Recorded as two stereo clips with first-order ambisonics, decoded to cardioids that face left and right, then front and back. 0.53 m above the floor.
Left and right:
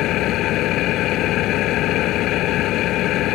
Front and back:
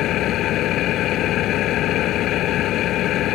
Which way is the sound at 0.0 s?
45° left.